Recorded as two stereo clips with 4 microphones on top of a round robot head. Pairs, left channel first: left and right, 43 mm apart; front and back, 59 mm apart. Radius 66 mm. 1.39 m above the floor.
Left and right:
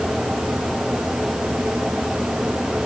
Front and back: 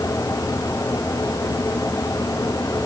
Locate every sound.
Only background noise.